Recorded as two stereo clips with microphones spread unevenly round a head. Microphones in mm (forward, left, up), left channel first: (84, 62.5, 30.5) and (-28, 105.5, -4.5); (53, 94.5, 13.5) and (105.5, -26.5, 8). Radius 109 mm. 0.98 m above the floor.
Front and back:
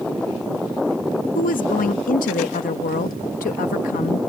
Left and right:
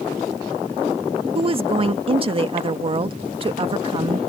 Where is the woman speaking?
25° right.